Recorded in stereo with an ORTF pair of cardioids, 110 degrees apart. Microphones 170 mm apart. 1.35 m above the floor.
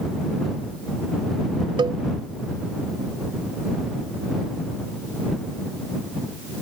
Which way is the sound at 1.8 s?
25° right.